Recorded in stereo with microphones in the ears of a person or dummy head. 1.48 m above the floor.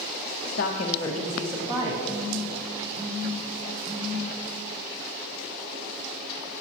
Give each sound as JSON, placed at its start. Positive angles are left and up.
{"t": 0.5, "sound": "a woman speaking", "side_deg": 65, "distance_m": 0.6}
{"t": 2.0, "sound": "a phone buzzing", "side_deg": -55, "distance_m": 2.5}